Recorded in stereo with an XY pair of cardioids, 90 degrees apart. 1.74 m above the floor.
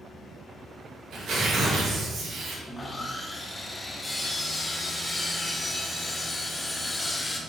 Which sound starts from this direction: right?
Tearing paper, at 1.1 s.